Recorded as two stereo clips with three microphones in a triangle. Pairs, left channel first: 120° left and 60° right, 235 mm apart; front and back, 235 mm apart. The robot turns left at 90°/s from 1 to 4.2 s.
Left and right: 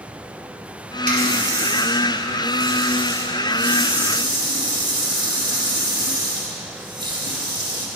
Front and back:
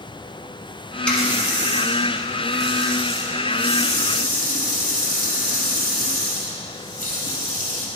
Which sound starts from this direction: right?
A running tap, at 1.1 s.